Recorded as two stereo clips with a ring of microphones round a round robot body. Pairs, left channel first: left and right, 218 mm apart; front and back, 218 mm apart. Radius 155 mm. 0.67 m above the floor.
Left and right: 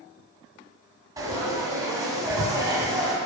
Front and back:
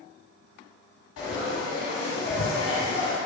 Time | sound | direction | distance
1.2 | frying | 15° right | 0.9 m